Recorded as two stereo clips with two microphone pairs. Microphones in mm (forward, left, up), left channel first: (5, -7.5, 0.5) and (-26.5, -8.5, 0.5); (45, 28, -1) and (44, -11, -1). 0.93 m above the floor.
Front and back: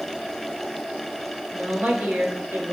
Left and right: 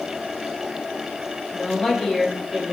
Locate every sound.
1.5 s a woman speaking: 150° left, 1.5 m; by 2.7 s 175° right, 1.7 m